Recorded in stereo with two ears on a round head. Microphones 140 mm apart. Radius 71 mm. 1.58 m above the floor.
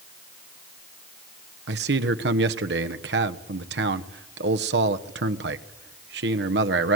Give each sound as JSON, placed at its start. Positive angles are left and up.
{"t": 1.7, "sound": "a man speaking", "side_deg": -85, "distance_m": 1.2}